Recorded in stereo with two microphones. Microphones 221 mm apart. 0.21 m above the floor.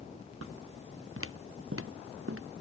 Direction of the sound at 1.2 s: 75° right (ahead or behind).